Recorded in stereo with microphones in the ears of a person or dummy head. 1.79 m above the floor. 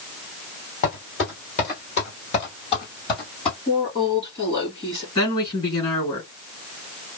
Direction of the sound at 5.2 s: 35° left (ahead or behind).